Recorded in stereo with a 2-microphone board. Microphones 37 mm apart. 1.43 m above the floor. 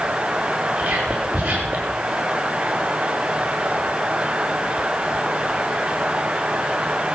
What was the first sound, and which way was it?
Whispering, 15° right (ahead or behind).